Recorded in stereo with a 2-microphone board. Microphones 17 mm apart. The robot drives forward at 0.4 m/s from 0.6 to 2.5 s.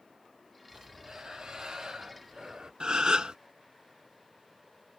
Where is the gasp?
60° right (ahead or behind), 0.8 m.